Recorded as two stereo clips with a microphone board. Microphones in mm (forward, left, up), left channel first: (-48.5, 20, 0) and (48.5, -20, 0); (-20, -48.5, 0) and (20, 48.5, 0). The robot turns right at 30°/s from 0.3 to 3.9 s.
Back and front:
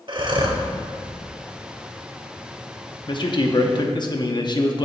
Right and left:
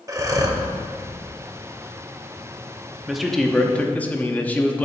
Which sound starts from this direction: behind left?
A man speaking, at 3.1 s.